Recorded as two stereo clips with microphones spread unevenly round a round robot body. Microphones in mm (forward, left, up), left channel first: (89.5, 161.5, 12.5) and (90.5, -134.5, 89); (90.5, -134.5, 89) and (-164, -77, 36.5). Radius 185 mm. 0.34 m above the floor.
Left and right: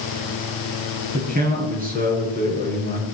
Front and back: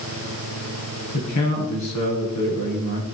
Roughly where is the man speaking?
Ahead right.